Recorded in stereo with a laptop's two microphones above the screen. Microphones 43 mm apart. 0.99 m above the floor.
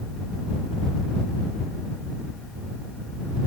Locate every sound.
Only background noise.